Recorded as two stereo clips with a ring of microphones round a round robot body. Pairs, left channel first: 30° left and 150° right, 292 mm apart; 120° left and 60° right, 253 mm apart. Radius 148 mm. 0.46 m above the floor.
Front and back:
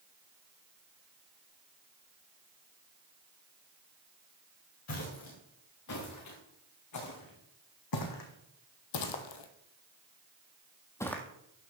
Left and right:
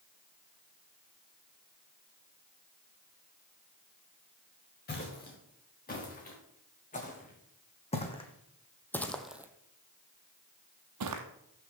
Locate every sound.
4.9 s footsteps: 70° left, 4.5 m; by 11.2 s 60° right, 1.3 m